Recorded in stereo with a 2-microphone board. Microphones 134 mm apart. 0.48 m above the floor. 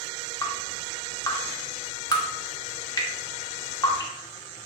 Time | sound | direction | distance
0.4 | dripping | 30° left (ahead or behind) | 1.1 m